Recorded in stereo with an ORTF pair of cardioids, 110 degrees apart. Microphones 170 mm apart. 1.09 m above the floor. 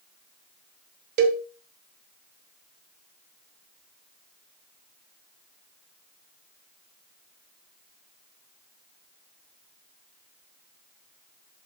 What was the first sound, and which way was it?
A cowbell, 65° right.